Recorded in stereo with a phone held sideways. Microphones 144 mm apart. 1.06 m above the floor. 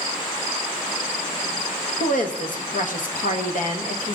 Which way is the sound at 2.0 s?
65° left (ahead or behind).